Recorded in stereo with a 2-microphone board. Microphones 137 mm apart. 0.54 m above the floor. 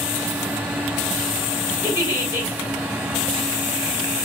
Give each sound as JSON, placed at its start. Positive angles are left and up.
{"t": 1.8, "sound": "a giggle", "side_deg": -20, "distance_m": 3.0}